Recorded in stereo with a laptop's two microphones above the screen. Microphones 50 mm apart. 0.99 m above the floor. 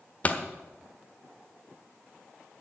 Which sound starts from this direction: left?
A pop, at 0.2 s.